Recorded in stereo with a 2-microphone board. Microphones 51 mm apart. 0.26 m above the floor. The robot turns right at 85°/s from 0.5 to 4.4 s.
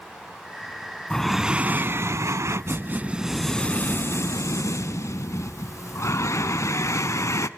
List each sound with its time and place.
1.1 s breathing: 165° left, 0.6 m; by 7.5 s 85° left, 0.6 m